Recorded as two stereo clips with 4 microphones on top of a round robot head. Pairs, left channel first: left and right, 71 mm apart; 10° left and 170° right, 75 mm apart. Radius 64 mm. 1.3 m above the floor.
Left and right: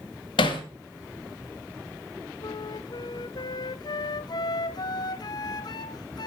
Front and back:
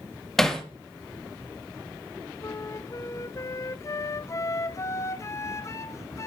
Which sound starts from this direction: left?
Hammering, at 0.4 s.